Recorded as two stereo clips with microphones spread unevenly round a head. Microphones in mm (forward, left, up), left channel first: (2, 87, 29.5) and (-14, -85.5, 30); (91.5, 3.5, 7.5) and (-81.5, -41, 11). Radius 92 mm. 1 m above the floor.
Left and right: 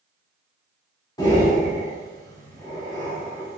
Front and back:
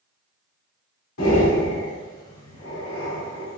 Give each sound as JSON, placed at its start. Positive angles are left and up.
{"t": 1.2, "sound": "breathing", "azimuth_deg": 15, "distance_m": 2.5}